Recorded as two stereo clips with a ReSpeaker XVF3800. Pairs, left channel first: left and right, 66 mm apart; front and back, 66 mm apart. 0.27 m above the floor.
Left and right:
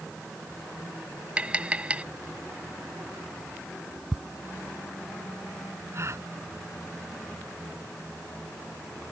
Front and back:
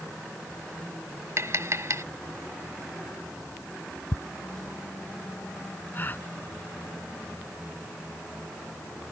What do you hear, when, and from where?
1.4 s tapping: 155° right
4.1 s ticking: 5° right
5.9 s a gasp: 55° right